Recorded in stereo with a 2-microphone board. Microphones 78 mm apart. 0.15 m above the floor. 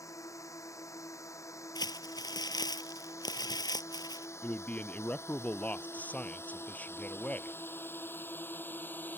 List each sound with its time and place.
0.0 s a drone: 45° left (ahead or behind); by 9.2 s 25° left (ahead or behind)
1.8 s crumpling: 65° left (ahead or behind)
4.4 s a man speaking: 20° left (ahead or behind)